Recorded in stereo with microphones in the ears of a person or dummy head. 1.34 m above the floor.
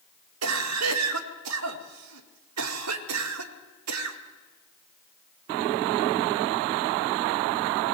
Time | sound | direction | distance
0.4 | a cough | 85° right | 1.8 m